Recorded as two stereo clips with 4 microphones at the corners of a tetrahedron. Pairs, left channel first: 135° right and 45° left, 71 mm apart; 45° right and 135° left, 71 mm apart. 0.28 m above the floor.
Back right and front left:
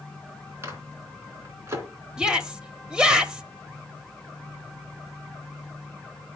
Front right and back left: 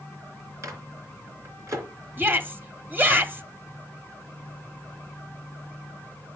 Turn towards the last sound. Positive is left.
turn(degrees=115)